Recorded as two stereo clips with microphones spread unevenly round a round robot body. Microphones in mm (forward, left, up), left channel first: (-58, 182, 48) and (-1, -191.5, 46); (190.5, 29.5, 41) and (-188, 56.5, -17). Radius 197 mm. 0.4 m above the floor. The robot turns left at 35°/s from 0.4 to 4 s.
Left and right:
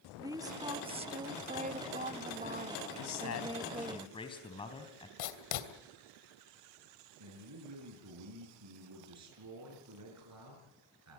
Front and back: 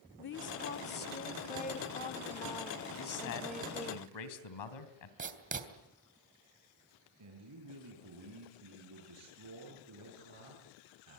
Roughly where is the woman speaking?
Ahead.